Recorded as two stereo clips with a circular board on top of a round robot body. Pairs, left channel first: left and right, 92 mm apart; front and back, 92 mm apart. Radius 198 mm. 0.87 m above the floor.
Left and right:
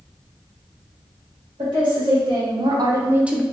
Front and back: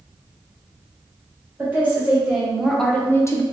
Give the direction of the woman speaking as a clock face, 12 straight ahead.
4 o'clock.